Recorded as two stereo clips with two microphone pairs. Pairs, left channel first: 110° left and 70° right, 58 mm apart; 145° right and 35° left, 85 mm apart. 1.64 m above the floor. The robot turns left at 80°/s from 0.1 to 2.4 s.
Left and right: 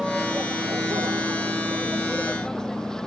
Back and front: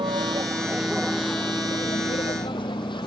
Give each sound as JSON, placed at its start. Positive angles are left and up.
{"t": 0.0, "sound": "a vehicle", "azimuth_deg": 15}